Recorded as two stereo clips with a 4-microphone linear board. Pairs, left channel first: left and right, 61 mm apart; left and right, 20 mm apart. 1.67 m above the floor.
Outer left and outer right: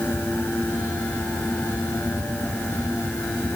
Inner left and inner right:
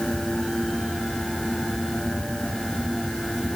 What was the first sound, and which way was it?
Only background noise.